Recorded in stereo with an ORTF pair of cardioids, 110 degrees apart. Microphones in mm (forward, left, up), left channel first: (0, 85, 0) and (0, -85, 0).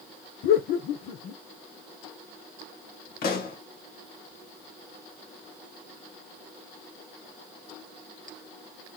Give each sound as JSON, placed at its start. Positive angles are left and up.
{"t": 0.4, "sound": "laughter", "azimuth_deg": 65, "distance_m": 0.9}
{"t": 3.2, "sound": "a pop", "azimuth_deg": 70, "distance_m": 1.3}